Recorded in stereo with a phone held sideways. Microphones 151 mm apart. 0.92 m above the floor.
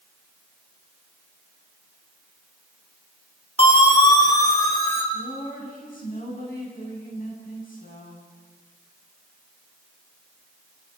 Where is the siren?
40° left (ahead or behind), 3 m; by 5.0 s 15° left (ahead or behind), 4.5 m.